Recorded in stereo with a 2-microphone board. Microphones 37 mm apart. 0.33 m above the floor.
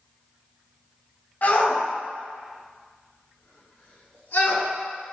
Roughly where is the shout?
Left.